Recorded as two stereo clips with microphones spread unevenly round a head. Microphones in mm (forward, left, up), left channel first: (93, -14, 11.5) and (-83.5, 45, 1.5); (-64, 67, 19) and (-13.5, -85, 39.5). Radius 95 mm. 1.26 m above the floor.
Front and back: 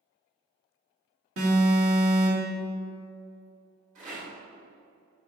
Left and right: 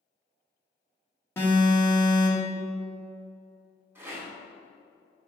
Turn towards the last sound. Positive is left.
turn(degrees=-145)